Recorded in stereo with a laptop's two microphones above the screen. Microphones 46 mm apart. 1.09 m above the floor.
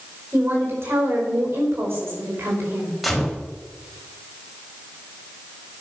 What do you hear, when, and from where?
0.3 s a woman speaking: 70° right (ahead or behind), 4.5 m
3.0 s a gunshot: centre (ahead or behind), 2 m